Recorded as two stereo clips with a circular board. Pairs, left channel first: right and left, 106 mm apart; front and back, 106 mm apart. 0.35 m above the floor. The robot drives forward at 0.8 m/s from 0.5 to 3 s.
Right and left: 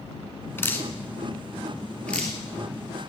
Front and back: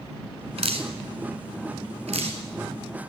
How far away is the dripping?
About 1.2 m.